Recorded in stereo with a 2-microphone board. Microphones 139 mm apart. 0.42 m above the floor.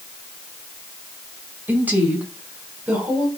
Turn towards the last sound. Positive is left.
turn(degrees=-10)  # may be behind; listen again after turning